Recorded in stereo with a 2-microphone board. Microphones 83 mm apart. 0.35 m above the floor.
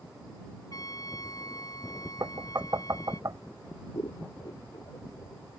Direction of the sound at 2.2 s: 45° right (ahead or behind).